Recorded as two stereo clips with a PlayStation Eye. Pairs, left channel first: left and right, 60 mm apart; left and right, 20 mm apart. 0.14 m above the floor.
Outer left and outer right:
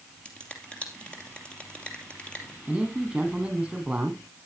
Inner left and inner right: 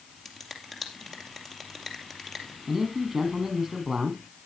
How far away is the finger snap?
About 2.5 m.